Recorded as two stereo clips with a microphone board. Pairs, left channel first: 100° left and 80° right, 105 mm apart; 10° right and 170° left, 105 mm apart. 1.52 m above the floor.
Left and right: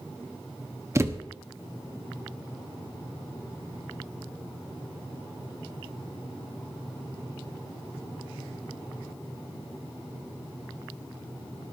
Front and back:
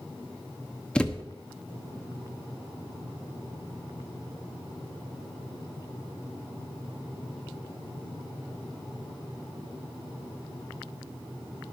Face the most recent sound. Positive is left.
turn(degrees=-75)